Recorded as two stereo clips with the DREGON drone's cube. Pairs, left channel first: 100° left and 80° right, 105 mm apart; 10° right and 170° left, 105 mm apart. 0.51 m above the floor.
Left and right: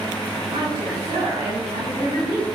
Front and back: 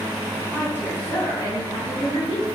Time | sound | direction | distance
0.5 | a woman speaking | 85° right | 3.5 m